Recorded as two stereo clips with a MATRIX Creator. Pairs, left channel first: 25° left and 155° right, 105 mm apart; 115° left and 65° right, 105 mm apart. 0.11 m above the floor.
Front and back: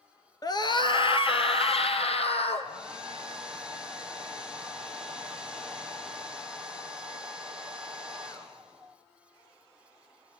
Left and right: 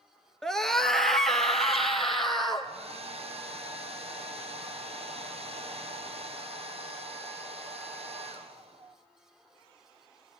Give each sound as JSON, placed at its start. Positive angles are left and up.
{"t": 0.4, "sound": "a scream", "azimuth_deg": 30, "distance_m": 1.4}
{"t": 2.6, "sound": "a hair dryer", "azimuth_deg": -75, "distance_m": 2.5}